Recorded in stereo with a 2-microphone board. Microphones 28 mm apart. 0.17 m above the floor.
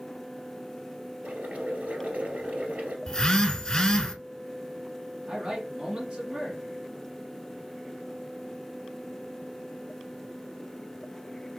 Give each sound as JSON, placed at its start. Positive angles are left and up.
{"t": 1.2, "sound": "boiling", "side_deg": -65, "distance_m": 1.6}
{"t": 3.1, "sound": "a phone buzzing", "side_deg": 30, "distance_m": 0.8}
{"t": 5.3, "sound": "a man speaking", "side_deg": -25, "distance_m": 1.8}